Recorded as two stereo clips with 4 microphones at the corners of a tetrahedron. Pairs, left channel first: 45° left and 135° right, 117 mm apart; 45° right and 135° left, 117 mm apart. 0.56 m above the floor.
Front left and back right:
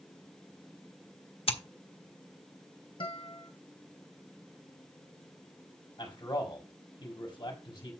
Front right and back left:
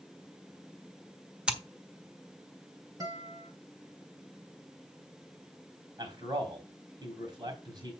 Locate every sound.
1.5 s scissors: 55° left, 1.4 m
3.0 s a guitar: 80° left, 2 m
6.0 s a man speaking: 90° left, 4 m